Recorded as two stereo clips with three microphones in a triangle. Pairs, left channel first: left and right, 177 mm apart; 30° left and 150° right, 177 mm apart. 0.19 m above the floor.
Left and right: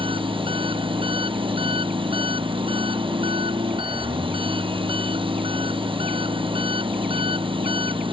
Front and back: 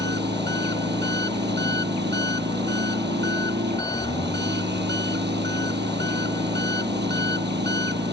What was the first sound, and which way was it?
An engine running, 150° right.